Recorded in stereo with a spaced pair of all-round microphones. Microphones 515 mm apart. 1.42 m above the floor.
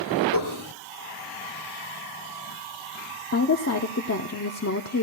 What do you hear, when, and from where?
0.3 s dishes clattering: 55° left (ahead or behind), 2.5 m
3.3 s a woman speaking: 30° left (ahead or behind), 0.7 m